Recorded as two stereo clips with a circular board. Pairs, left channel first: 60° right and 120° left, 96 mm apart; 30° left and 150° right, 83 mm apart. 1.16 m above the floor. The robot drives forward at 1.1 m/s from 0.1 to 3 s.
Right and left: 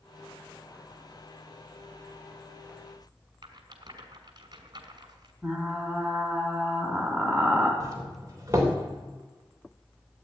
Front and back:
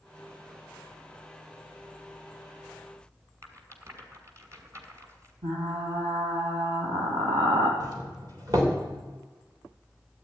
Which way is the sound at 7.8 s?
175° left.